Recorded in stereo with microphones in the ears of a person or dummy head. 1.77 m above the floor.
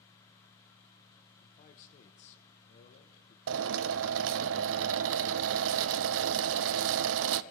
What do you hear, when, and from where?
1.4 s a man speaking: 45° left (ahead or behind), 1.1 m
3.5 s a drill: 70° right (ahead or behind), 0.5 m